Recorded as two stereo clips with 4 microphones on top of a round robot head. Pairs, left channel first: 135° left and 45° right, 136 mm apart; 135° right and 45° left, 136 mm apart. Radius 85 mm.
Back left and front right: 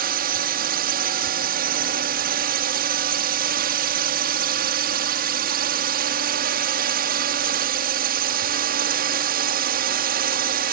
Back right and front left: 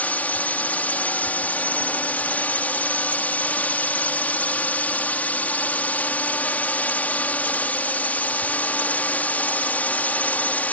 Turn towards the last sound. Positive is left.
turn(degrees=-55)